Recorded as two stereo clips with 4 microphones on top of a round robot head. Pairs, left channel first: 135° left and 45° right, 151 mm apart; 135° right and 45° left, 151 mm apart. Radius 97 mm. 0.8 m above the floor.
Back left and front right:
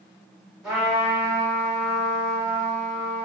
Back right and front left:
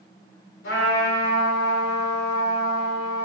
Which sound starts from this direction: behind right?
A trumpet, at 0.6 s.